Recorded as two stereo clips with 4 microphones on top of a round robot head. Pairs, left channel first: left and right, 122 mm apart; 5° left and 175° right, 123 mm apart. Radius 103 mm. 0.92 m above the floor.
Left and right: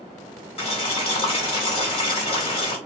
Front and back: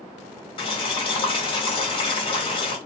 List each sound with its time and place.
0.6 s boiling: 50° left, 1.2 m